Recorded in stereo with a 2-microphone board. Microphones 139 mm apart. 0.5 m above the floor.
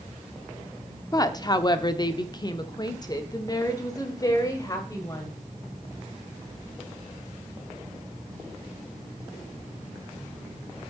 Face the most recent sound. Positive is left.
turn(degrees=25)  # may be behind; listen again after turning